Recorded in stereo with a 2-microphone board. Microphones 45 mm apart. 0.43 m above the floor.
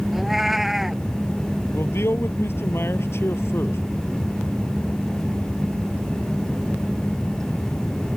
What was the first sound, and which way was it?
A cat meowing, 5° right (ahead or behind).